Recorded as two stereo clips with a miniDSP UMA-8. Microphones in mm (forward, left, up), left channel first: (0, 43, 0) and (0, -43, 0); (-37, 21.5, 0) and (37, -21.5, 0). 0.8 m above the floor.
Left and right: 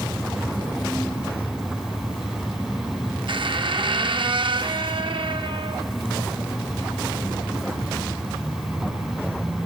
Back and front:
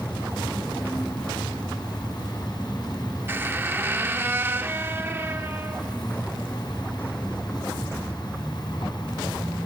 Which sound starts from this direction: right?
A squeak, at 3.3 s.